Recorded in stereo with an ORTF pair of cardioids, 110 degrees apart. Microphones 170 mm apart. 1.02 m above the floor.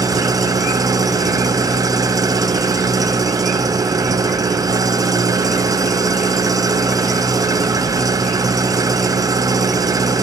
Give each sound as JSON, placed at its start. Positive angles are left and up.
{"t": 0.0, "sound": "an engine running", "azimuth_deg": -20, "distance_m": 0.8}